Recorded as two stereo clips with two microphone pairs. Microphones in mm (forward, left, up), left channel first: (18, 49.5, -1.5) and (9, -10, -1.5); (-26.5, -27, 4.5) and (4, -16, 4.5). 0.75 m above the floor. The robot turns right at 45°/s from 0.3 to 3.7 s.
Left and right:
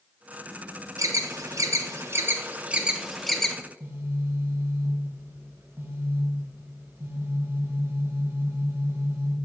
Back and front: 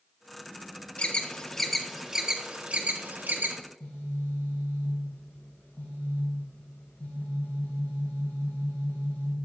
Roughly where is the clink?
I don't hear a clink.